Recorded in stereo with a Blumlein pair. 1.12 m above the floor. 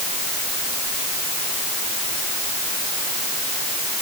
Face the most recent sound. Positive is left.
No sound to turn to.